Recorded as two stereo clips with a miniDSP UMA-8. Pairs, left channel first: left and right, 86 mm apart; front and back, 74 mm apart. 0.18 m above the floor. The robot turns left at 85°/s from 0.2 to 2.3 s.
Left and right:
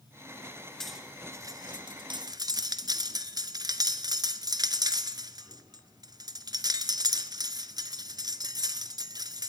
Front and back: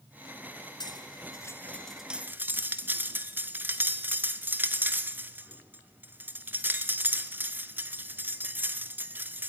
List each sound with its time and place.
0.8 s cutlery clinking: 5° left, 1.3 m; by 9.5 s 120° right, 1.3 m